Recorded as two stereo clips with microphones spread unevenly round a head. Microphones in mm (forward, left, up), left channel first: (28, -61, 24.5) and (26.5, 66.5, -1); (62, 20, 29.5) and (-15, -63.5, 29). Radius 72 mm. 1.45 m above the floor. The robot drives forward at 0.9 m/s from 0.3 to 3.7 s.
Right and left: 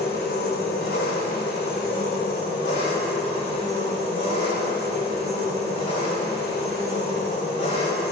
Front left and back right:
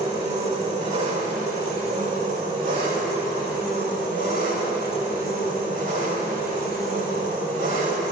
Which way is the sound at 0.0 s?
100° right.